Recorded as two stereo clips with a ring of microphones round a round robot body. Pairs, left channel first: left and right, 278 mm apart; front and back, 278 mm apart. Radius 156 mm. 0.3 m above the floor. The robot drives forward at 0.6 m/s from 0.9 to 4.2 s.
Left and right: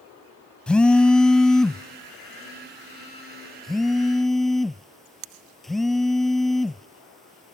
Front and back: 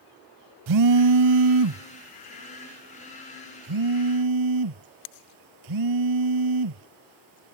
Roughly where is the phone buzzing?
Behind.